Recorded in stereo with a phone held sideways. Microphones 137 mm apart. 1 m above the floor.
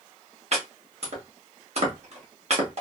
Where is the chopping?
55° right (ahead or behind), 1.3 m.